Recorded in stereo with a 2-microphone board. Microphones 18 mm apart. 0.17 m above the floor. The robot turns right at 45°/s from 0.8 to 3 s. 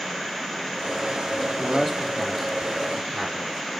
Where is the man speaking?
40° left (ahead or behind), 1.8 m; by 3.8 s centre (ahead or behind), 1.8 m.